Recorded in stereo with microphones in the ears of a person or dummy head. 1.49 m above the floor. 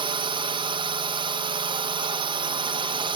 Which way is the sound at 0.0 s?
25° right (ahead or behind).